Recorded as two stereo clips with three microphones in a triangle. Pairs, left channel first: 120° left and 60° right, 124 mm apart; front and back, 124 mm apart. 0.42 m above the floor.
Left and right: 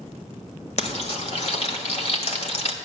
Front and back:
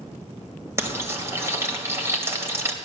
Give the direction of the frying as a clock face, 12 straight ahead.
8 o'clock.